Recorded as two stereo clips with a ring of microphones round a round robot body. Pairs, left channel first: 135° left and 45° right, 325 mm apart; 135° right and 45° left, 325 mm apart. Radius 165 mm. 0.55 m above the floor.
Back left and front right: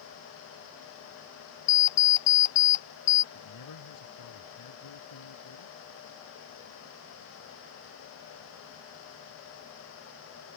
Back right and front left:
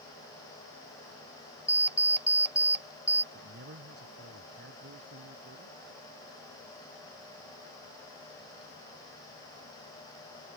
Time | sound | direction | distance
1.7 | an alarm clock | 130° left | ?
3.3 | a man speaking | 105° left | ?